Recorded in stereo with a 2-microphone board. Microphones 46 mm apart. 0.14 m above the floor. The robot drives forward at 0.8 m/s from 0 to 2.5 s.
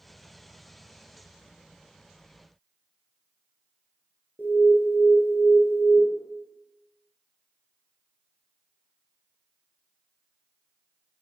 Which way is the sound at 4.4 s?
45° left (ahead or behind).